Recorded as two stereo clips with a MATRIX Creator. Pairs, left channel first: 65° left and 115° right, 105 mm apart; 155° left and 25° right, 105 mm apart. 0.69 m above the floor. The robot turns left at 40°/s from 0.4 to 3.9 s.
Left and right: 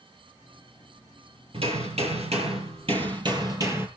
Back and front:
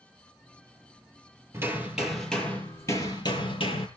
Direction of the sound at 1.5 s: 85° right.